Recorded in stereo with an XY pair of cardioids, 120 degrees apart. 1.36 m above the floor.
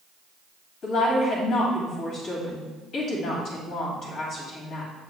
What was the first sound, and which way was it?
A woman speaking, 60° left.